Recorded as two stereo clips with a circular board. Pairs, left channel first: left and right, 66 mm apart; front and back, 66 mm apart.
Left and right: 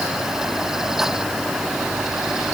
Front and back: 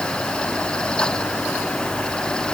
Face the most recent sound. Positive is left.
No sound to turn to.